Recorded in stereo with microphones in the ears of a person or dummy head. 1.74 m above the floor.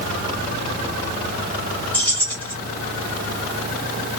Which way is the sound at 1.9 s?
15° left (ahead or behind).